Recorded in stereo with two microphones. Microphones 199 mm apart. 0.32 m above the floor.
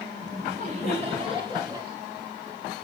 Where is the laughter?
45° right (ahead or behind), 2.5 m; by 1.9 s 20° right (ahead or behind), 1.8 m.